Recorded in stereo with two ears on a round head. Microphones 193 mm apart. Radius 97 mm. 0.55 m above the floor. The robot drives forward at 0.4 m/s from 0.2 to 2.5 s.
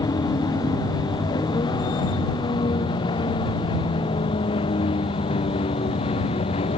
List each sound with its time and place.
0.0 s a vehicle: 15° left (ahead or behind); by 6.8 s 25° left (ahead or behind)